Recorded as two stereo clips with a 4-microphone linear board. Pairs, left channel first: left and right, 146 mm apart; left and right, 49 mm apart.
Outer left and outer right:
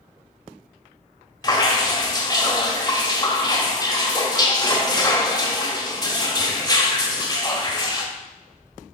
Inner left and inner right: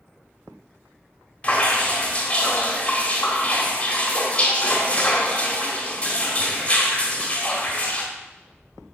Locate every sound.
1.4 s dripping: 25° left (ahead or behind), 1.4 m